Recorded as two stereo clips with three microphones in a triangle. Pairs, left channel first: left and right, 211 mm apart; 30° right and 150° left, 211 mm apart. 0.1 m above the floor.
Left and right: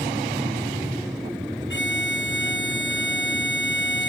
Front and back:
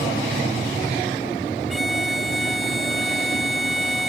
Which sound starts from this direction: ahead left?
A violin, at 1.7 s.